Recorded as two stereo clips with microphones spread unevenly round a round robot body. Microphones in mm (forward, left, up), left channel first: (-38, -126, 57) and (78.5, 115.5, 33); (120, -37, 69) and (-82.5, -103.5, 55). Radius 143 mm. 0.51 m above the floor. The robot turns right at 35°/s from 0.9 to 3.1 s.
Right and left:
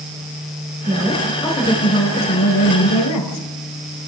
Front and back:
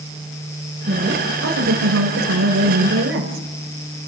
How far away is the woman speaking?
About 3 m.